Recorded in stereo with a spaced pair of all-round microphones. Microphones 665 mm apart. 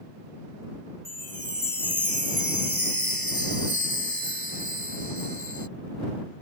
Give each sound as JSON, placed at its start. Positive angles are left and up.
{"t": 1.1, "sound": "a chime", "side_deg": 30}